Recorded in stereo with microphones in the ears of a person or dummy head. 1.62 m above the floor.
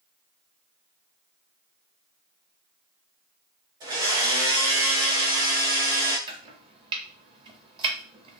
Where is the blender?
25° right (ahead or behind), 1.0 m.